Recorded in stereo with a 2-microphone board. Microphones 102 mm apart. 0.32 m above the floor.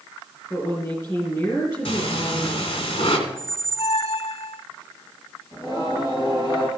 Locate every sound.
0.5 s a woman speaking: 40° left (ahead or behind), 3.5 m
1.9 s breathing: 70° left (ahead or behind), 2.5 m
3.3 s a squeak: 75° left (ahead or behind), 0.6 m
5.5 s singing: 55° left (ahead or behind), 3.5 m